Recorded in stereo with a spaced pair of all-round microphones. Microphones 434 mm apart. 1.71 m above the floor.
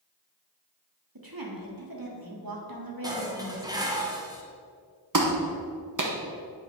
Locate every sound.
1.1 s a woman speaking: 50° right (ahead or behind), 1.4 m
3.0 s dishes clattering: 10° right (ahead or behind), 0.9 m
5.1 s a clap: 45° right (ahead or behind), 1.0 m